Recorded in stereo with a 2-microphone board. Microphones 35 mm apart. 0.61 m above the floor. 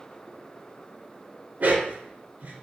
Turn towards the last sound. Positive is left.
turn(degrees=-50)  # may be behind; listen again after turning